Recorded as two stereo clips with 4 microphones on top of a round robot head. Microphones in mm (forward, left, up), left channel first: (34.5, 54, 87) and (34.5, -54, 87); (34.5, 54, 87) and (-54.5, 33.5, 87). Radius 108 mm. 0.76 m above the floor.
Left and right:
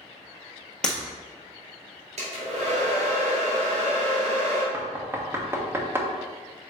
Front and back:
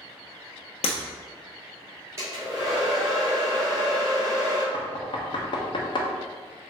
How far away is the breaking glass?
About 1.2 m.